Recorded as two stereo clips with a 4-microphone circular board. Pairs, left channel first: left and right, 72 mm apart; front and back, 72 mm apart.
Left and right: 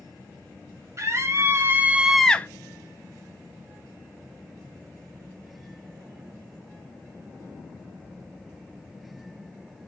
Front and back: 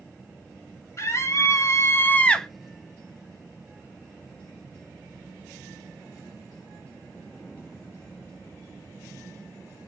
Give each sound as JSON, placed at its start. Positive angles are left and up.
{"t": 1.0, "sound": "a scream", "azimuth_deg": -45, "distance_m": 1.5}